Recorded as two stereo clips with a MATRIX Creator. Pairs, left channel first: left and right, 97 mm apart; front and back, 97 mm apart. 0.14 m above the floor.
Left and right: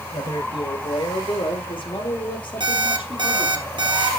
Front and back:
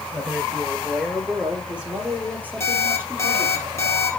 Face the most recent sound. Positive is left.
turn(degrees=-55)